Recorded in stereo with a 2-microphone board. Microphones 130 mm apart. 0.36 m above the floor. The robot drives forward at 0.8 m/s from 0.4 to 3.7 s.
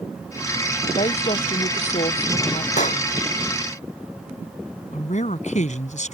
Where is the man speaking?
70° left (ahead or behind).